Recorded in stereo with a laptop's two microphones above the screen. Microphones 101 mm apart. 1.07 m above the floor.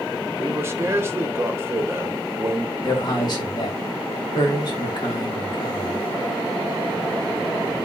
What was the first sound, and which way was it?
A man speaking, 25° right (ahead or behind).